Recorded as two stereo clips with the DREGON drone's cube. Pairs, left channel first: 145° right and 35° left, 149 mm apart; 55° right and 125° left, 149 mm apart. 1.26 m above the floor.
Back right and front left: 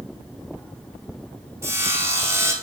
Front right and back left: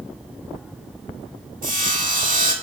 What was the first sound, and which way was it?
Sawing, 105° left.